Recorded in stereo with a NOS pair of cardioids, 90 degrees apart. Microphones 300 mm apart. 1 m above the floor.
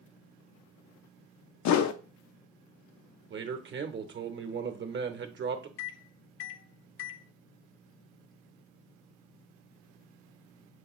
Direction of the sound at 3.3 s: 40° right.